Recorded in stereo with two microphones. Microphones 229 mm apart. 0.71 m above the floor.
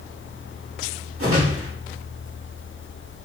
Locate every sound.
1.2 s a whoosh: 70° right (ahead or behind), 1.5 m